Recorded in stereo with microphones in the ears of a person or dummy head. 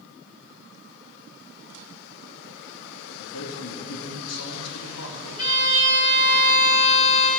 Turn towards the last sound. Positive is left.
turn(degrees=45)  # may be behind; listen again after turning